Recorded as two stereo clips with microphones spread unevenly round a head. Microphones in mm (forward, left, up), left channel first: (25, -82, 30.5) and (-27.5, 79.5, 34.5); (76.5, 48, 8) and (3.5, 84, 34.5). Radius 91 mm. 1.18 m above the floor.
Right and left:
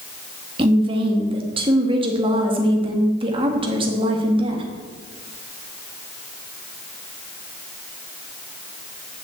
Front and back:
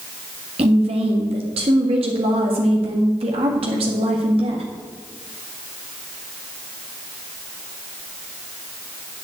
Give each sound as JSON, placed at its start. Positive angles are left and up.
{"t": 0.6, "sound": "a woman speaking", "azimuth_deg": 170, "distance_m": 1.9}